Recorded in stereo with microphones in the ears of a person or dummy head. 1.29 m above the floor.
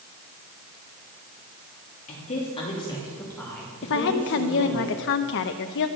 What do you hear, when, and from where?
2.1 s a woman speaking: 40° left (ahead or behind), 3 m; by 4.8 s 25° right (ahead or behind), 3.5 m
3.8 s a woman speaking: 65° left (ahead or behind), 0.8 m